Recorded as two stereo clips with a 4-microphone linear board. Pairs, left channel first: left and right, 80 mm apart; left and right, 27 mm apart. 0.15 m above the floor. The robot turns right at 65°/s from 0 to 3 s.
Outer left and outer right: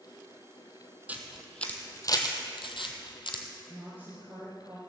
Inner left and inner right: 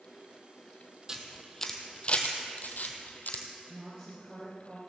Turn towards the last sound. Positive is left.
turn(degrees=-25)  # may be behind; listen again after turning